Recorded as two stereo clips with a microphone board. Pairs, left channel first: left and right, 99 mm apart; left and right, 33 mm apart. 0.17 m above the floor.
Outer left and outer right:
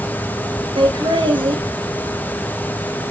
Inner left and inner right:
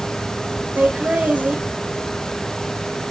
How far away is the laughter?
About 2.5 m.